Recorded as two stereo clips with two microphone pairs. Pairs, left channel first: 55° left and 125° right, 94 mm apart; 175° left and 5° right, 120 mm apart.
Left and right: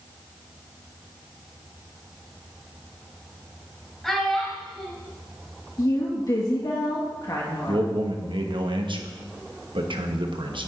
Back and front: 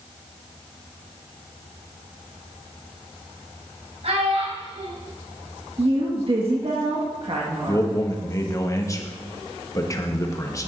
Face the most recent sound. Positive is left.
turn(degrees=-130)